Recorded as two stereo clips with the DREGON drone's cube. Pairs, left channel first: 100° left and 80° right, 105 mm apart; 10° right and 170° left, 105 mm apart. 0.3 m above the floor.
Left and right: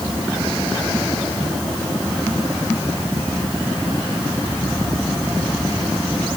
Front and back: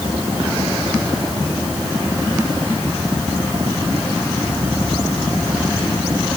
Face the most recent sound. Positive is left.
No sound to turn to.